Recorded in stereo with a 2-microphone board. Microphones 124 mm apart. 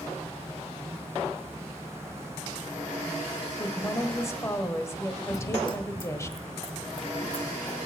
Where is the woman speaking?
25° left (ahead or behind), 1.3 m.